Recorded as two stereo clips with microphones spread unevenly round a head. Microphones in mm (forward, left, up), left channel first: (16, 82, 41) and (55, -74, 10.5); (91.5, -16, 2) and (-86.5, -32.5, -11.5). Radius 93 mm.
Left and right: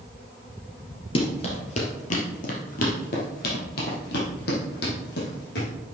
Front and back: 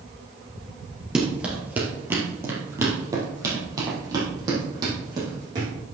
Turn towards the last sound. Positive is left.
turn(degrees=115)